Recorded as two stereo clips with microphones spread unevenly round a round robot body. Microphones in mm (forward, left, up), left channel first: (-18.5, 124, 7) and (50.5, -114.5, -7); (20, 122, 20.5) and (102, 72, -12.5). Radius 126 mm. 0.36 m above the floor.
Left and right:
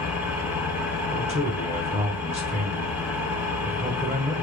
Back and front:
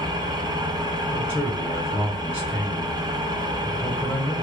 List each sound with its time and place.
0.0 s an engine running: 10° left, 0.9 m
1.1 s a man speaking: 110° right, 1.0 m